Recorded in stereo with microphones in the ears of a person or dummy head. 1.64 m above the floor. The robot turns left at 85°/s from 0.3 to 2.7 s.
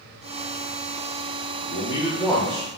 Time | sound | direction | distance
1.6 | a man speaking | 60° left | 0.5 m